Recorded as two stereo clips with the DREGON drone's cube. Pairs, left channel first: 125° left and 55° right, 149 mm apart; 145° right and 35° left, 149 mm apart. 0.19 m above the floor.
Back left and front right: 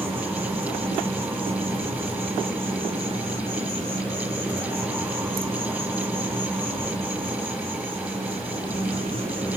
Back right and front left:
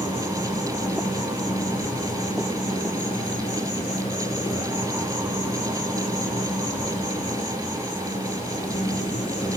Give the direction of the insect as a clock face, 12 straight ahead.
3 o'clock.